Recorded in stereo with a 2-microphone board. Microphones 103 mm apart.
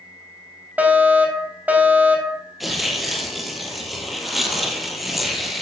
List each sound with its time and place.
0.8 s a fire alarm: 15° right (ahead or behind), 2.5 m
2.6 s tearing paper: centre (ahead or behind), 2 m